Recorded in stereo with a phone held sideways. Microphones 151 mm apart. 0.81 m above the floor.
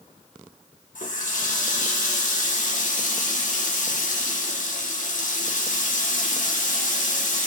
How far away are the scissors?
No scissors in this recording.